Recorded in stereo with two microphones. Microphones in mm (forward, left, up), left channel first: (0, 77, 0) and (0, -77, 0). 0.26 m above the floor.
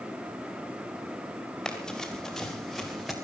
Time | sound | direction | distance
1.6 | running footsteps | 5° left (ahead or behind) | 4.5 m